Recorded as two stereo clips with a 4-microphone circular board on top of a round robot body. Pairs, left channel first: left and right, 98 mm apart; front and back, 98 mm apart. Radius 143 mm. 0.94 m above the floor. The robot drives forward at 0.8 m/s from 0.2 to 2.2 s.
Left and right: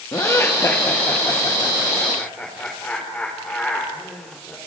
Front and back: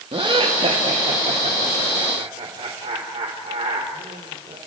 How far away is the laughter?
About 1.7 m.